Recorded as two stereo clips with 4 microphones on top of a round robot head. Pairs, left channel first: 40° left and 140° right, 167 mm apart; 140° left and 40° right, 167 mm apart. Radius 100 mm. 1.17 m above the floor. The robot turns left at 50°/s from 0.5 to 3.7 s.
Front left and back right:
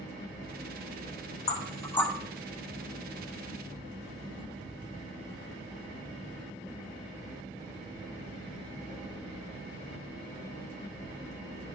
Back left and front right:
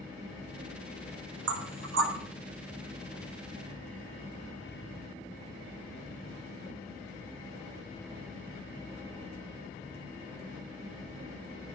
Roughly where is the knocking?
Ahead.